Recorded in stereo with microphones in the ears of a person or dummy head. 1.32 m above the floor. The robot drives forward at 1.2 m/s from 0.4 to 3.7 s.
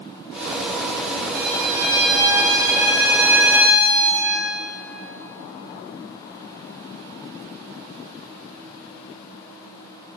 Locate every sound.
1.4 s a violin: 45° right (ahead or behind), 0.9 m; by 4.3 s 10° right (ahead or behind), 3.5 m